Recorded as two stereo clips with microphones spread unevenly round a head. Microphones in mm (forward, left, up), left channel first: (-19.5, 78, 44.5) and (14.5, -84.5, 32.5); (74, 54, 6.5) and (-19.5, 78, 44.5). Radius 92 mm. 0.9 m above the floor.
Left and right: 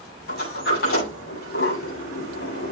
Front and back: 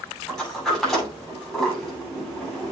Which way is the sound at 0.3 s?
70° left.